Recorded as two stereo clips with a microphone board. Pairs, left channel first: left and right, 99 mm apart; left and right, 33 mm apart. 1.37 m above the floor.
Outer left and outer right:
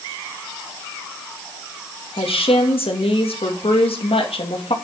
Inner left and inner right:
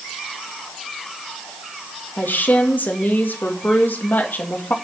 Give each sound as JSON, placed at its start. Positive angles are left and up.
{"t": 2.2, "sound": "a woman speaking", "side_deg": 85, "distance_m": 2.0}